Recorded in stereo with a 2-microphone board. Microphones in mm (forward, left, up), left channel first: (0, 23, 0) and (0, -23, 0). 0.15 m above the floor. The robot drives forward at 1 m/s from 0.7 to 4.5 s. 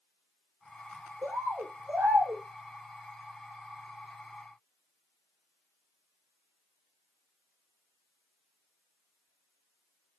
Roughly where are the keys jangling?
No keys jangling in this recording.